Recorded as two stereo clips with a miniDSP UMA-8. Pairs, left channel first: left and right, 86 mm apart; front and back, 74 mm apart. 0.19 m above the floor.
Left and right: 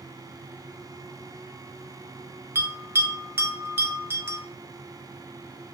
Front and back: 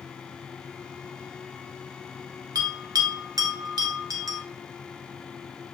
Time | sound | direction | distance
2.5 | a bell | 150° right | 1.4 m